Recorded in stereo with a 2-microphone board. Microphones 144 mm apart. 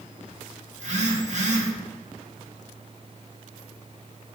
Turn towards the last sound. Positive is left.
turn(degrees=-55)  # may be behind; listen again after turning